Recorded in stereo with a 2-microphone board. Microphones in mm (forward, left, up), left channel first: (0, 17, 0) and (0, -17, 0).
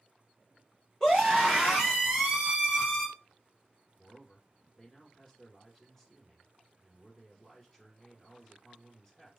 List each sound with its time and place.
1.0 s a scream: 15° left (ahead or behind), 1.4 m; by 3.1 s 15° right (ahead or behind), 1.7 m
4.0 s a man speaking: 10° left (ahead or behind), 1.9 m